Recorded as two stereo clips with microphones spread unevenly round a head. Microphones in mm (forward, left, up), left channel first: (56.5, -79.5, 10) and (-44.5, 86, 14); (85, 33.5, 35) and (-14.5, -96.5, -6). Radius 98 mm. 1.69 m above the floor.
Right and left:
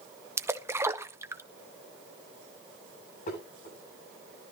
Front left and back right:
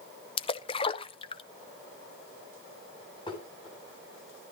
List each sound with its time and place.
0.4 s a splash: 50° left, 0.7 m
3.3 s dishes clattering: 10° right, 9 m